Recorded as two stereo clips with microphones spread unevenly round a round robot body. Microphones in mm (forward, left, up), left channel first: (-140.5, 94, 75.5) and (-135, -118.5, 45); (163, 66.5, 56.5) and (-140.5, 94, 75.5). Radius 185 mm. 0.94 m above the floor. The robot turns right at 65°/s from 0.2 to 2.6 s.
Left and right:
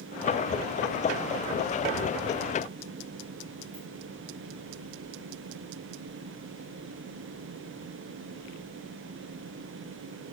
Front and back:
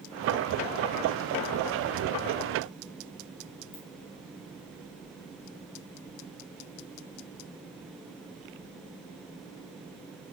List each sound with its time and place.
3.7 s a ringtone: 30° right, 2 m